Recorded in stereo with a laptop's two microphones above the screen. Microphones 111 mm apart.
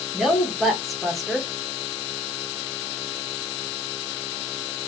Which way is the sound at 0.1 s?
Centre (ahead or behind).